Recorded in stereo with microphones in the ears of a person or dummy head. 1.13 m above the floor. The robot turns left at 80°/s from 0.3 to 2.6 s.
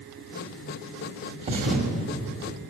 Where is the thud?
40° right, 1.6 m; by 1.9 s 80° right, 1.6 m.